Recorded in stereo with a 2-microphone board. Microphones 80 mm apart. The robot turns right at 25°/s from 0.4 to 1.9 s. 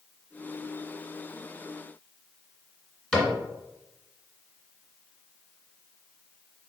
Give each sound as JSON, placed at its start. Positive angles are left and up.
{"t": 3.1, "sound": "a cupboard door", "side_deg": 10, "distance_m": 1.5}